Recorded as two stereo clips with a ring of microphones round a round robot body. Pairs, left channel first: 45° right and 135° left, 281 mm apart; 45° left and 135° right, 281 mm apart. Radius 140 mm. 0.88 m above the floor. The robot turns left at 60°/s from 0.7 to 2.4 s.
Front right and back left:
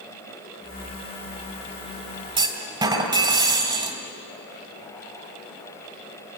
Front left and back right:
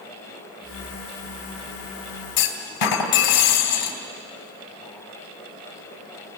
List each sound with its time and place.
2.4 s a clunk: 65° left, 2.5 m; by 4.0 s 60° left, 2.5 m